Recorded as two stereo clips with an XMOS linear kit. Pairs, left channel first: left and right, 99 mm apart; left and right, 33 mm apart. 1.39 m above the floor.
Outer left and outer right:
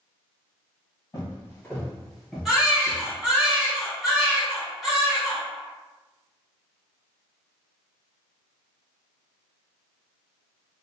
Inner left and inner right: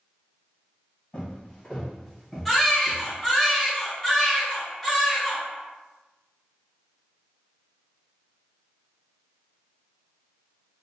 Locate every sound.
1.1 s footsteps: 30° left (ahead or behind), 1.6 m; by 3.5 s 25° right (ahead or behind), 1.7 m
2.5 s a baby crying: centre (ahead or behind), 1.3 m